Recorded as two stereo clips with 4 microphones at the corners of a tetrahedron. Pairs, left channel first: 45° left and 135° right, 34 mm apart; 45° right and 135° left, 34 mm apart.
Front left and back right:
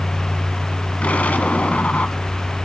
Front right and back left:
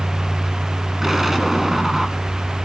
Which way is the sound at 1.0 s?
60° left.